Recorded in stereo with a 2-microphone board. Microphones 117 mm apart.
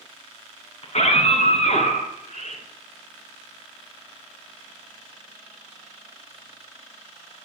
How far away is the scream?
About 3.5 m.